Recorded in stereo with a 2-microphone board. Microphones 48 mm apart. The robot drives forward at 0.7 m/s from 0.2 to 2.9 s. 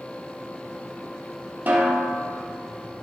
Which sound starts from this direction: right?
A snare drum, at 1.7 s.